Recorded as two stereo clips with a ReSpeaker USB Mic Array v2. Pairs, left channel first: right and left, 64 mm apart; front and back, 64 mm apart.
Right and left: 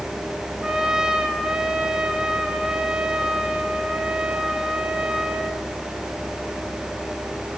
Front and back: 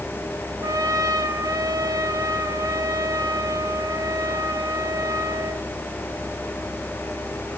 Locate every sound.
0.6 s a trumpet: 170° left, 2.5 m